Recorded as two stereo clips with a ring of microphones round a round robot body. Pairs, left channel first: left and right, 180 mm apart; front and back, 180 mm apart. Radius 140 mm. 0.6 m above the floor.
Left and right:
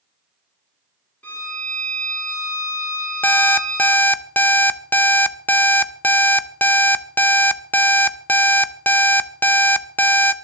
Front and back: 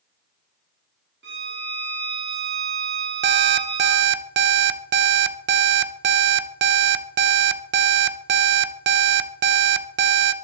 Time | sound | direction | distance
1.2 | a violin | 170° left | 6 m
3.2 | an alarm clock | 170° left | 0.9 m